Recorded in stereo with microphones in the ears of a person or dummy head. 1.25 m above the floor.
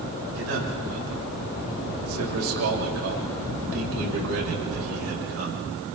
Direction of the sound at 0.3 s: 90° right.